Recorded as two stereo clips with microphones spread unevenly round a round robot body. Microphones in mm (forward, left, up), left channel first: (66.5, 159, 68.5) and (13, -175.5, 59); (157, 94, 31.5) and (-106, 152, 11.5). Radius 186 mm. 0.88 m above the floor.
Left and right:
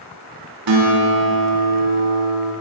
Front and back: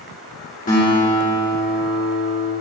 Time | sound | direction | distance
0.7 | a guitar | 80° right | 2 m